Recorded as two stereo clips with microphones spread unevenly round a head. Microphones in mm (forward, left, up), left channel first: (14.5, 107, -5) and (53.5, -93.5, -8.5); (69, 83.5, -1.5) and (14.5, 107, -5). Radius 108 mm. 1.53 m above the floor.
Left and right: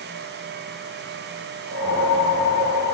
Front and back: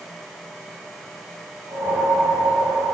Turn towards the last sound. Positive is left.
turn(degrees=150)